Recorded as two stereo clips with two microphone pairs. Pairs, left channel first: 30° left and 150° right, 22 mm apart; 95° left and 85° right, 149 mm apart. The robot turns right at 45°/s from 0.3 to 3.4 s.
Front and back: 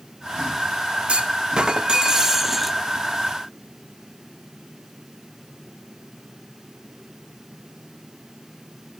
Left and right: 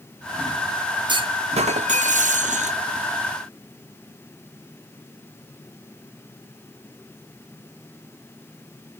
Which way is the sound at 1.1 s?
135° right.